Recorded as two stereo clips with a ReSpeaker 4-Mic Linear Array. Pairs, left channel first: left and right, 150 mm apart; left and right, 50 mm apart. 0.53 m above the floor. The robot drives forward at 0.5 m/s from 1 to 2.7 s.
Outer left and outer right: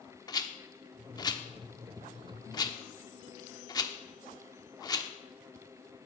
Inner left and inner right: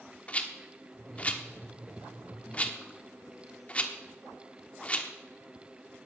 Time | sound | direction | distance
0.3 | a rattle | 25° left (ahead or behind) | 1.1 m